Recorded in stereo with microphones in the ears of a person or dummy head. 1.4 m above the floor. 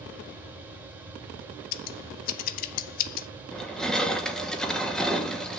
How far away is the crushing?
About 1.1 m.